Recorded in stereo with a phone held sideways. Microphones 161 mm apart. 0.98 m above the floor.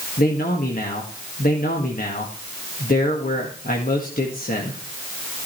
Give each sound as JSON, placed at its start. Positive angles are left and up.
{"t": 0.2, "sound": "a man speaking", "side_deg": 65, "distance_m": 1.7}